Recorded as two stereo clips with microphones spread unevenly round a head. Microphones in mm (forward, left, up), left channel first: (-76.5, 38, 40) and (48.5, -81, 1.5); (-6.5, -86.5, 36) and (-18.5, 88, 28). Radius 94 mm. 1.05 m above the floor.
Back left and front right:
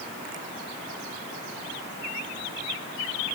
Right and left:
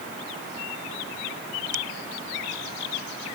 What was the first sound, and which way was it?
Only background noise.